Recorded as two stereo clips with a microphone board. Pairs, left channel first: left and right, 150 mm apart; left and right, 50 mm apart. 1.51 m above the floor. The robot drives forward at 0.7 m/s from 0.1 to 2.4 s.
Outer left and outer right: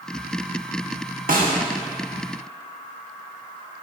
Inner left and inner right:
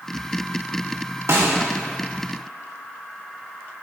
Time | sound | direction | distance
1.3 | a snare drum | 70° right (ahead or behind) | 1.6 m